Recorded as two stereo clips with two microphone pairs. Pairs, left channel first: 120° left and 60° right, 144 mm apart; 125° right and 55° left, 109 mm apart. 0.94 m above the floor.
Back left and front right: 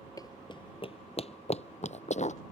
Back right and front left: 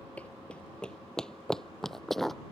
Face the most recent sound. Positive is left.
turn(degrees=150)